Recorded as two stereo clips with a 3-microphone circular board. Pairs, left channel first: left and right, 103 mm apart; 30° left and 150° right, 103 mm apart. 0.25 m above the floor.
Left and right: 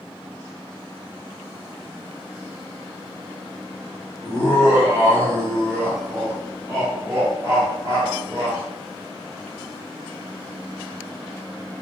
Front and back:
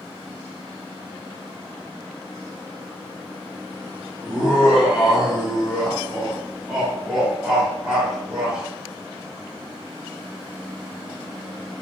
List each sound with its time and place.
4.2 s laughter: 75° right, 1.4 m